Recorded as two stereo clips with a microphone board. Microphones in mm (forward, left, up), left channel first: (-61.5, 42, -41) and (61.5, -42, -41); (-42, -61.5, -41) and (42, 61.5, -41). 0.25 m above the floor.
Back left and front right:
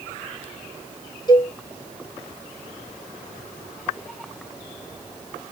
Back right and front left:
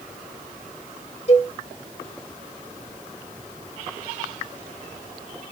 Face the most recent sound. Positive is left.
turn(degrees=-160)